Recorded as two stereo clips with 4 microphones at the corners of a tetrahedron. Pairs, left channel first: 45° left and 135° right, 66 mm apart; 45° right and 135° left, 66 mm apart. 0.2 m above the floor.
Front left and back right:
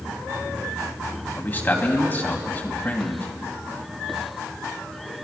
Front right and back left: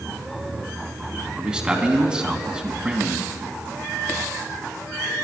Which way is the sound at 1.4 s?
70° left.